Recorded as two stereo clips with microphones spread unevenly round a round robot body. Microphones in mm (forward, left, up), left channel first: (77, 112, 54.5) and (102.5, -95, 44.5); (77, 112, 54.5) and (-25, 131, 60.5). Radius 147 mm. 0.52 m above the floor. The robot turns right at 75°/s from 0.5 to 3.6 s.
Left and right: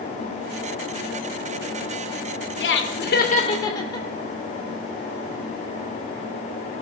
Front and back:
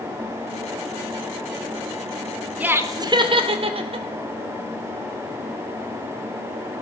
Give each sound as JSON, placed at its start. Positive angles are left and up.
{"t": 2.6, "sound": "laughter", "azimuth_deg": 95, "distance_m": 2.0}